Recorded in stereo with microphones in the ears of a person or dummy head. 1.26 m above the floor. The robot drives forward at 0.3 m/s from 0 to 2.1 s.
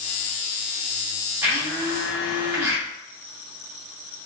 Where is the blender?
15° right (ahead or behind), 1.5 m.